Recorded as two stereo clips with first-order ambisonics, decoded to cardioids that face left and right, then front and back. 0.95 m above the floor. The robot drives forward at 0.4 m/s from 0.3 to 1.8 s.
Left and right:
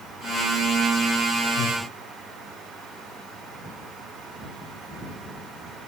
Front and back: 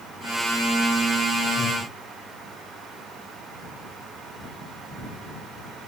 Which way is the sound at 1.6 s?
90° left.